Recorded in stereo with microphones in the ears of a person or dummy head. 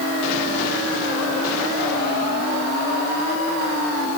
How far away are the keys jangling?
No keys jangling in this recording.